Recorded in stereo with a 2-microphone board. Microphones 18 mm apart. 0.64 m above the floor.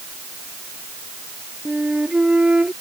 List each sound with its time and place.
1.6 s a flute: 65° right (ahead or behind)